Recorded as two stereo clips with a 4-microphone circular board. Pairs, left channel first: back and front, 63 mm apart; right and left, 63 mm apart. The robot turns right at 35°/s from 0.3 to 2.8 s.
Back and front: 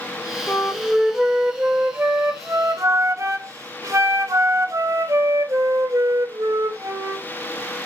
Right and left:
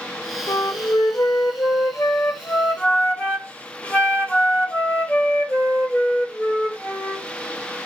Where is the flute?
100° right, 3.5 m; by 7.2 s 20° right, 3.5 m.